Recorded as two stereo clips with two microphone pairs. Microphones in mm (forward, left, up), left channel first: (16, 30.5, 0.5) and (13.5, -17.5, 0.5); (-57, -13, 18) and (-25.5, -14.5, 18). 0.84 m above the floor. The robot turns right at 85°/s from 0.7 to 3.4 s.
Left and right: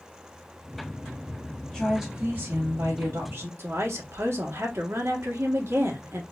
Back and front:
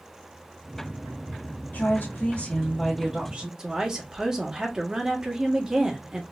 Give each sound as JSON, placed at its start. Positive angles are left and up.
{"t": 1.7, "sound": "a woman speaking", "azimuth_deg": 170, "distance_m": 1.4}
{"t": 3.6, "sound": "a woman speaking", "azimuth_deg": -75, "distance_m": 1.4}